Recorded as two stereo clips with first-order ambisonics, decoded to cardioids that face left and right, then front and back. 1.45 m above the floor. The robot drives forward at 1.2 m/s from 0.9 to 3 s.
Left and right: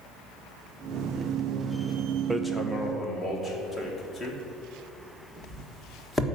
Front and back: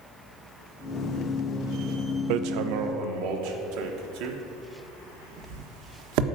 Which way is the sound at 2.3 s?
170° right.